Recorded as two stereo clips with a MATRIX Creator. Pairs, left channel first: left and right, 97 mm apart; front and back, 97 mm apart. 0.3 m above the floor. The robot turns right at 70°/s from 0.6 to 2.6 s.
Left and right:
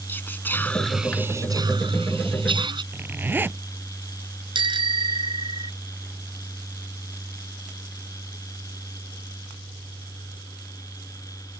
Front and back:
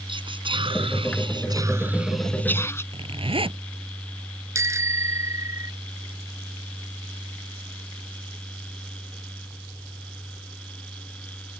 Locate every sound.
0.1 s whispering: 160° left; by 2.8 s 60° right
2.9 s a zipper: 160° right
4.5 s a bicycle bell: 120° right